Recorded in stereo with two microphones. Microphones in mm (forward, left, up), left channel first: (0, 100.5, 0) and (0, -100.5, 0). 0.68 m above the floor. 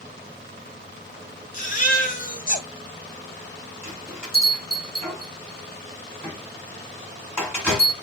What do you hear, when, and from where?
1.5 s a baby crying: 40° left (ahead or behind), 1.2 m
3.8 s a bell: 5° left (ahead or behind), 3 m